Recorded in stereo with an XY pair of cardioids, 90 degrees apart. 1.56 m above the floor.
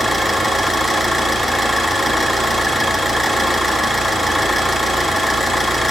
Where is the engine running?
10° left, 2.5 m.